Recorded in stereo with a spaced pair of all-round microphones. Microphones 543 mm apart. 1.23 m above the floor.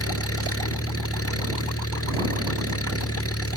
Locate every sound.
0.0 s an engine running: 25° left (ahead or behind)